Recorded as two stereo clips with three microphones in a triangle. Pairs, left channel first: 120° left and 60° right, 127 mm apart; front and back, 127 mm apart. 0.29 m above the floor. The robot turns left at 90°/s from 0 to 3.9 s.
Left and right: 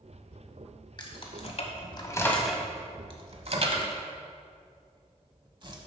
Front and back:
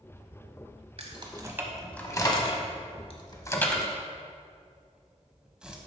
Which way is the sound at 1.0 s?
165° left.